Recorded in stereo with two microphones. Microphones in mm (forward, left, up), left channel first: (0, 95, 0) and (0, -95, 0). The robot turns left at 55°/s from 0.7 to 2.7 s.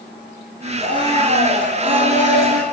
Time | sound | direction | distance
0.8 | a blender | 35° left | 5.5 m